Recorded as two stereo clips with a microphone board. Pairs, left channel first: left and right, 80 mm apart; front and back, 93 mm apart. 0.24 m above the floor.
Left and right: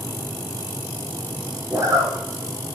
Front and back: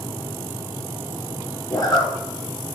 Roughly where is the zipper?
Ahead right.